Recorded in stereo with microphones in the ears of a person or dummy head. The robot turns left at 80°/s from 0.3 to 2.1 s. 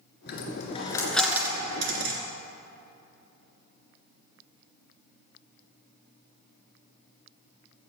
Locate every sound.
0.3 s a dropped coin: 60° left (ahead or behind), 2.5 m; by 2.2 s 60° right (ahead or behind), 2.5 m